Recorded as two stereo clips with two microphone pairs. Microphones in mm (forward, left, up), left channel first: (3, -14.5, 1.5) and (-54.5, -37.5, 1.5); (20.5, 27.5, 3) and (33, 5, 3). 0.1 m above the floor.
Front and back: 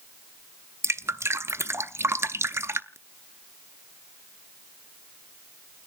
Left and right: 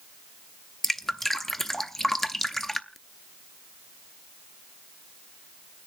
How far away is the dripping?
About 0.6 m.